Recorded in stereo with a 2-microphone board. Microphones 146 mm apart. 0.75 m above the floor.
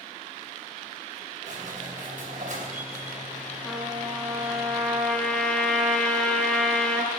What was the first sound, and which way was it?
A squeak, 65° right (ahead or behind).